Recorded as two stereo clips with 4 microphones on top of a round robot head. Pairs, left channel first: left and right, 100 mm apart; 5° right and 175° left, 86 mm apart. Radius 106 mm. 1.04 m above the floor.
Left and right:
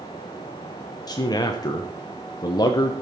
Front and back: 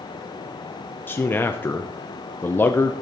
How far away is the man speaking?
About 0.9 m.